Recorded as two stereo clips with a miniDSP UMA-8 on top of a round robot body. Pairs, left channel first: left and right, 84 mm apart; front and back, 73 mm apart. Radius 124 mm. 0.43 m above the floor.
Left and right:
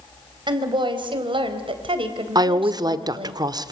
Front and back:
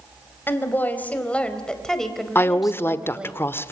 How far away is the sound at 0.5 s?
About 4 m.